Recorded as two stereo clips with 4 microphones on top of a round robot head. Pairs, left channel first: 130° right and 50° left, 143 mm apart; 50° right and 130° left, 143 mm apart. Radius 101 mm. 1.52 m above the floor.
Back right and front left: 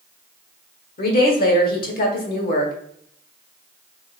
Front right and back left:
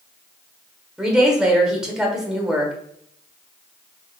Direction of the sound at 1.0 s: 145° right.